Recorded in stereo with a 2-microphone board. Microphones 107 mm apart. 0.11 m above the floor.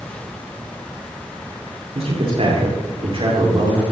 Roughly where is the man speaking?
Right.